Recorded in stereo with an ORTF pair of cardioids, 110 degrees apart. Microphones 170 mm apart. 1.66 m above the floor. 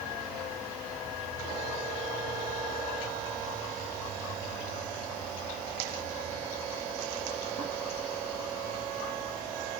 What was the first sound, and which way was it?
Only background noise.